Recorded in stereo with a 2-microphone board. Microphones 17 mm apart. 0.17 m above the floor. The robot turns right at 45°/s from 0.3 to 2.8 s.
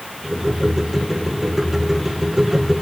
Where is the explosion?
I don't hear an explosion.